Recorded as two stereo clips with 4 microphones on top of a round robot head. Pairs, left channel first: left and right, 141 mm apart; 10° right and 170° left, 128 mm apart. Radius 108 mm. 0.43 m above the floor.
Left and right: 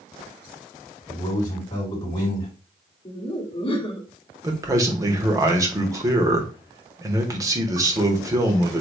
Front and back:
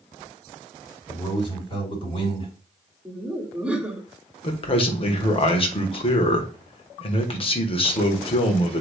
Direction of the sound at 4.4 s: 30° right.